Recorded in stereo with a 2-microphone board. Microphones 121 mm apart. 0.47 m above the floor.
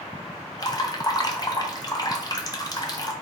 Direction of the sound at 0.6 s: 35° left (ahead or behind).